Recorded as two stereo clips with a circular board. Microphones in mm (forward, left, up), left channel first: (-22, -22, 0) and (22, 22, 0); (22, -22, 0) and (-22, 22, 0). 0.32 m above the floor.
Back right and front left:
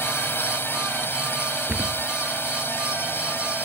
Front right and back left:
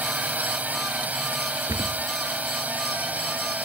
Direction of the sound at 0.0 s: 170° right.